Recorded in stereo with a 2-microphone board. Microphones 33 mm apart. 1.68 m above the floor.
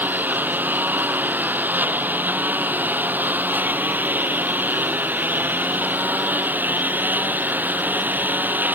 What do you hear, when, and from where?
0.0 s a lawn mower: 55° right (ahead or behind)